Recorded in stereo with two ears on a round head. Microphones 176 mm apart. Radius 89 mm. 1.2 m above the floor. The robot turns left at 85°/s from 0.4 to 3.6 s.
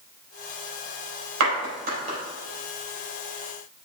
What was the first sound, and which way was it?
A clap, 85° right.